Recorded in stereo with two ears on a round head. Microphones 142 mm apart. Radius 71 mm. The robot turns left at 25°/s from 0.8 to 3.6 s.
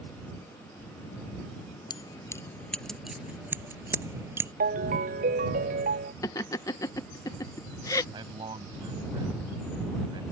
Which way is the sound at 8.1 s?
30° right (ahead or behind).